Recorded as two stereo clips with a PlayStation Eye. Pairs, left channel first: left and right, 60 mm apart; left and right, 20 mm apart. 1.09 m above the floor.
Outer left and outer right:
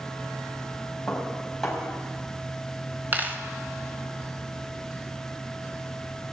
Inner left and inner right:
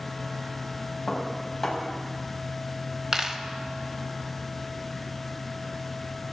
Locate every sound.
1.1 s dishes clattering: centre (ahead or behind), 4.5 m
3.1 s a dropped coin: 30° right (ahead or behind), 1.2 m